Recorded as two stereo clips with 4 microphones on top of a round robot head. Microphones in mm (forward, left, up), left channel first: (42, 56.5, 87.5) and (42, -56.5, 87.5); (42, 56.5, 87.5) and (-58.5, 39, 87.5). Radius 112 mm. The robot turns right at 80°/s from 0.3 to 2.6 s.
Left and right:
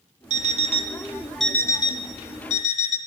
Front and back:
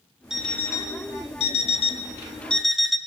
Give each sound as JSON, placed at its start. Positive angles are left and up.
{"t": 0.3, "sound": "an alarm clock", "azimuth_deg": -85, "distance_m": 0.5}